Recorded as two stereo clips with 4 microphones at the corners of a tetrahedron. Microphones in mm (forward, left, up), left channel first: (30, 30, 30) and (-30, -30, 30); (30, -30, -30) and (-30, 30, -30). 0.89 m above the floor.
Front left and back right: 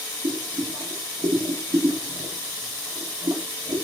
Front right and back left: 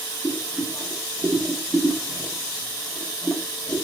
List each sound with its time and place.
0.2 s boiling: 135° right, 0.8 m